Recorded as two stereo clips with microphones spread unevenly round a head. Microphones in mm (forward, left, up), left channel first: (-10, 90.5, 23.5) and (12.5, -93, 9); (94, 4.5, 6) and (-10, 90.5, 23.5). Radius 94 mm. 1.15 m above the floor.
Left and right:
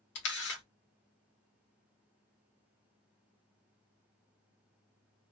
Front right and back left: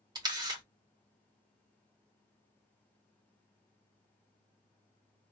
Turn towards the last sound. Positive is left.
turn(degrees=90)